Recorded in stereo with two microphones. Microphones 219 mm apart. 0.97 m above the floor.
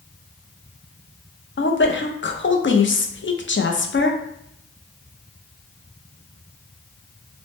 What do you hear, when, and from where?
1.6 s a woman speaking: 60° left (ahead or behind), 0.5 m